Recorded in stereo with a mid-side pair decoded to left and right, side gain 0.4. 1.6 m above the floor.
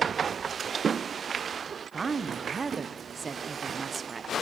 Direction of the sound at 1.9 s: 40° right.